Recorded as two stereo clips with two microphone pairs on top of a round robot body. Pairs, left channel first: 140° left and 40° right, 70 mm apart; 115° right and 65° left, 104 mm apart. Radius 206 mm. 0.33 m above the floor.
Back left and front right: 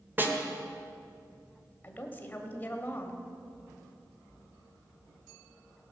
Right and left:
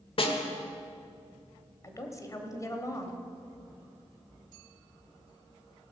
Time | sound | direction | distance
0.2 | a snare drum | 100° right | 1.6 m
1.8 | a woman speaking | 160° right | 1.6 m